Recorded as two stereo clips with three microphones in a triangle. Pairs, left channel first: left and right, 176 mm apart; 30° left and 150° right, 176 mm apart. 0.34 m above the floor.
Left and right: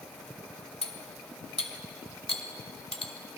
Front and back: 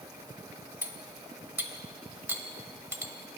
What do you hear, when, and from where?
0.8 s cutlery clinking: 135° left, 0.8 m